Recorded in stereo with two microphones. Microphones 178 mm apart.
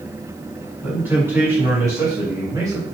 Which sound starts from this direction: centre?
A man speaking, at 0.8 s.